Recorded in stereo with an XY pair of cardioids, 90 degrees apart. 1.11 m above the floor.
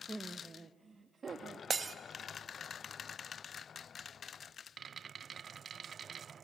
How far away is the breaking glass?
About 0.8 m.